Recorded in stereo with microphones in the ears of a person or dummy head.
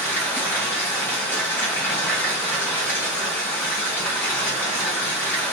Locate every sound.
0.0 s running water: 15° left (ahead or behind), 1.3 m